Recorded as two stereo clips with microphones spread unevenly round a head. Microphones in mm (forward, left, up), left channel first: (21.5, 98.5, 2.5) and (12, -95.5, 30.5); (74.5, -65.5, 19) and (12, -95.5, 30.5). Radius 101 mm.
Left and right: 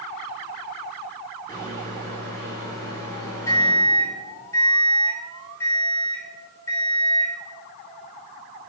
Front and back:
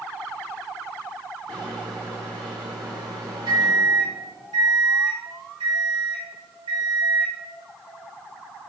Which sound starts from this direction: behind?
A microwave, at 1.5 s.